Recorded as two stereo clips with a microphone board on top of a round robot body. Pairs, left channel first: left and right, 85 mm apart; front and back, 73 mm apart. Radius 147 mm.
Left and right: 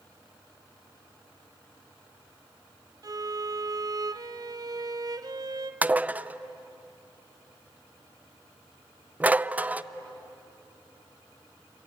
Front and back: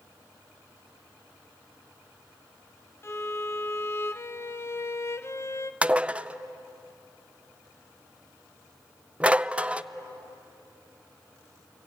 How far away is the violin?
About 1.0 m.